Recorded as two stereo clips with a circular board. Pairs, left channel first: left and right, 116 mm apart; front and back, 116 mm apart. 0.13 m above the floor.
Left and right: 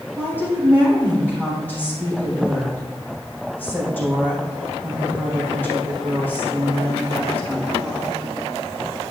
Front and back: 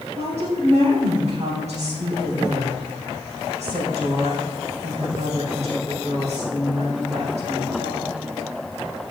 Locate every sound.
0.2 s a woman speaking: 165° left, 4 m